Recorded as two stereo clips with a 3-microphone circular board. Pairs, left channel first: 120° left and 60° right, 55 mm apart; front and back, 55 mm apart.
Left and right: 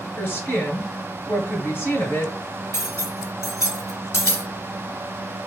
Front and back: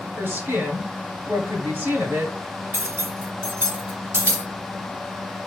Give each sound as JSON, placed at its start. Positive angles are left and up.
{"t": 0.2, "sound": "a woman speaking", "azimuth_deg": 160, "distance_m": 1.9}
{"t": 2.7, "sound": "cutlery clinking", "azimuth_deg": 140, "distance_m": 1.6}